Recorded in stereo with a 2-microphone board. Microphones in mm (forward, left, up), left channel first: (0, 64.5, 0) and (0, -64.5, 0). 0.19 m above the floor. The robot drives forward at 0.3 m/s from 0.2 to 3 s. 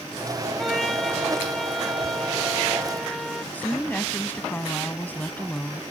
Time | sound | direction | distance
0.6 | a trumpet | centre (ahead or behind) | ?
3.5 | a woman speaking | 15° left (ahead or behind) | ?